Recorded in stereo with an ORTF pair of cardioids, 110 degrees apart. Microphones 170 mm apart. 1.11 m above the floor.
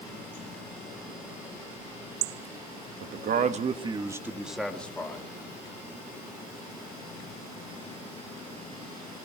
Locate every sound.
3.0 s a man speaking: 65° right, 1.3 m; by 5.2 s 15° left, 2.0 m